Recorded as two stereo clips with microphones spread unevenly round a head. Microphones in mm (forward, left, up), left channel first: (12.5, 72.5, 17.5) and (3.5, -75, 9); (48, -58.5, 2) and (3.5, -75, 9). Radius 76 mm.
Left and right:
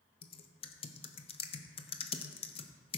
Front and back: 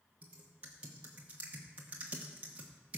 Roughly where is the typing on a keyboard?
Behind left.